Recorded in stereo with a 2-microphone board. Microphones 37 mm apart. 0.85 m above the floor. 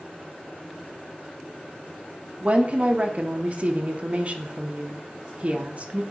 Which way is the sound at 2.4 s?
35° right (ahead or behind).